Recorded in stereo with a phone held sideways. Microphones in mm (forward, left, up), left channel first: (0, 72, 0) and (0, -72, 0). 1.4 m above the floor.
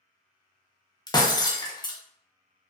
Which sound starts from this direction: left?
Breaking glass, at 1.1 s.